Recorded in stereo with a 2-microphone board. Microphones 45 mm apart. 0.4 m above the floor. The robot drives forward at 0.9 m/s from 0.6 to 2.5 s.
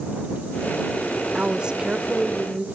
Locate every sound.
1.4 s a woman speaking: 25° right (ahead or behind), 0.9 m; by 2.6 s 15° right (ahead or behind), 1.4 m